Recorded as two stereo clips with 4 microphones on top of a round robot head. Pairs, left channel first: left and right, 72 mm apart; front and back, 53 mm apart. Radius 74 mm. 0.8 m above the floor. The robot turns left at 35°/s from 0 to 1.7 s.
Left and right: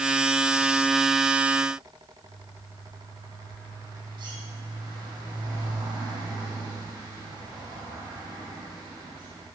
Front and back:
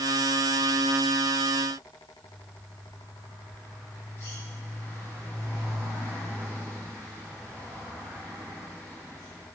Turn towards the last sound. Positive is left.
turn(degrees=-60)